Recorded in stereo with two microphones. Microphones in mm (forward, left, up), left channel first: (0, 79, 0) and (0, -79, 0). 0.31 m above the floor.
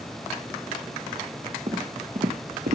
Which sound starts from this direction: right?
Footsteps, at 1.7 s.